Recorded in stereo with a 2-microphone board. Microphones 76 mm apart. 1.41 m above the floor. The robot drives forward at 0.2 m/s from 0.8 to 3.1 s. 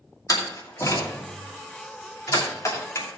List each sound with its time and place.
0.3 s a door slam: 50° left (ahead or behind), 2.5 m; by 3.2 s 45° left (ahead or behind), 2.5 m